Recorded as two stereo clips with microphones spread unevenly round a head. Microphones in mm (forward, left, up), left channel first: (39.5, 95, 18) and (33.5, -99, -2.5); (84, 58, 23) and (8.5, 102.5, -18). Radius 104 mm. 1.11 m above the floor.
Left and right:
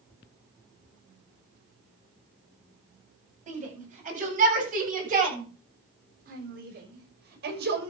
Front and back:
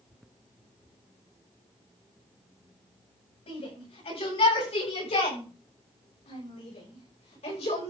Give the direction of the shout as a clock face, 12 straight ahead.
1 o'clock.